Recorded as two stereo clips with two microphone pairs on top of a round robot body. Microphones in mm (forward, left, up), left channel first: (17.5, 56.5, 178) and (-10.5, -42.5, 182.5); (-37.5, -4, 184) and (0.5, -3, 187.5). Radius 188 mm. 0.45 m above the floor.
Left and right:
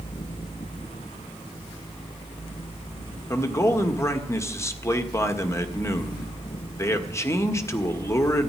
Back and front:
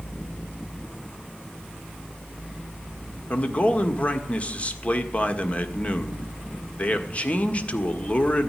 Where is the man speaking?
135° left, 1.7 m.